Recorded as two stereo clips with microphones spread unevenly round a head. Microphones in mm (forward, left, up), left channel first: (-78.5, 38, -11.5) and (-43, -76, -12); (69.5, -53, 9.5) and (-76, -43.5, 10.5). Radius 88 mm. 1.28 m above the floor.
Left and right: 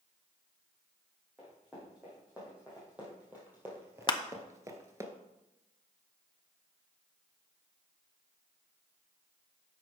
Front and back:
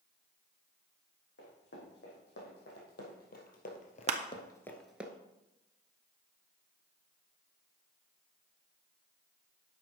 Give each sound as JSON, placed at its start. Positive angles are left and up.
{"t": 1.4, "sound": "running footsteps", "azimuth_deg": 15, "distance_m": 5.0}
{"t": 4.1, "sound": "crushing", "azimuth_deg": 145, "distance_m": 0.8}